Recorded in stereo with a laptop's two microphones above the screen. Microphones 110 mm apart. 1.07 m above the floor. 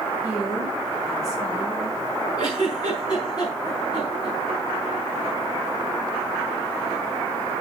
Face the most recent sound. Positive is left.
turn(degrees=40)  # may be behind; listen again after turning